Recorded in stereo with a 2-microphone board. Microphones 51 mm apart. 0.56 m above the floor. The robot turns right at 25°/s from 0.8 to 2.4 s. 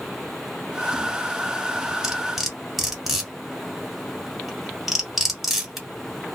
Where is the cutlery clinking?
15° right (ahead or behind), 1.3 m; by 5.9 s 5° right (ahead or behind), 1.3 m.